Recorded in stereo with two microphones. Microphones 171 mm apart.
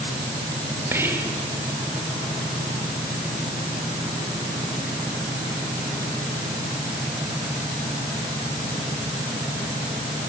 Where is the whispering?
15° right (ahead or behind), 2.5 m.